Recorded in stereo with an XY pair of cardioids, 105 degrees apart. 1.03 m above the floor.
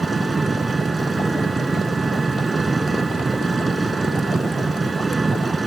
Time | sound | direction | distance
0.0 | an engine running | 20° right | ?